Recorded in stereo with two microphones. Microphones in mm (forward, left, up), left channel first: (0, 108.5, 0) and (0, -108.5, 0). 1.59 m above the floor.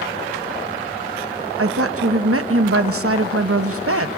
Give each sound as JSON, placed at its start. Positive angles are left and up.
{"t": 1.6, "sound": "a woman speaking", "side_deg": -75, "distance_m": 0.9}